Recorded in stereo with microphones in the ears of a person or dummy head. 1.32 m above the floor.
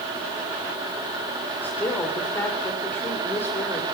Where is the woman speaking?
10° left (ahead or behind), 4 m.